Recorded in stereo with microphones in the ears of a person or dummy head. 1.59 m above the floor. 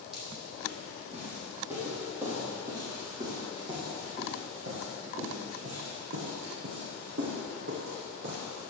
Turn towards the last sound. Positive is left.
turn(degrees=-65)  # may be behind; listen again after turning